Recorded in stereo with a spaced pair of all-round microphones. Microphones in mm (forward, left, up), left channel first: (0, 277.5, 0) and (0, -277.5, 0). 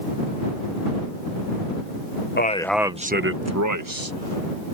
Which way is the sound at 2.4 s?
20° left (ahead or behind).